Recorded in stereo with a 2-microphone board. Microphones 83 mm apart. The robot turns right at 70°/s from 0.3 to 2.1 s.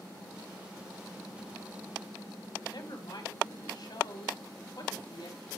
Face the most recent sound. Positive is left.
turn(degrees=65)  # may be behind; listen again after turning